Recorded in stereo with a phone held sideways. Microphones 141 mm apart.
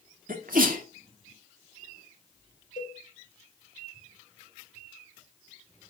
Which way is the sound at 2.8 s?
80° left.